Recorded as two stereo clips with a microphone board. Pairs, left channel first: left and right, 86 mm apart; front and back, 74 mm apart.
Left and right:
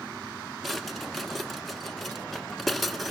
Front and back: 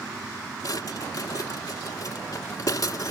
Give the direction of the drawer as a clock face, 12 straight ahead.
12 o'clock.